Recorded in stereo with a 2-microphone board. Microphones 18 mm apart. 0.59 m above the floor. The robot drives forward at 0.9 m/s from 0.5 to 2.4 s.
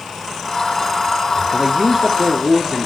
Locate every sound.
1.5 s a man speaking: 30° right (ahead or behind), 1.2 m; by 2.9 s 25° right (ahead or behind), 1.5 m